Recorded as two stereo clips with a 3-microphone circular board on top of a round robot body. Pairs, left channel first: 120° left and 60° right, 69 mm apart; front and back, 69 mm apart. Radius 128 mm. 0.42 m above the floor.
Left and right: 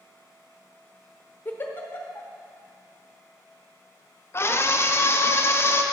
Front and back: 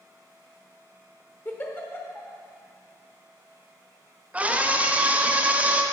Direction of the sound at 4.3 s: 125° left.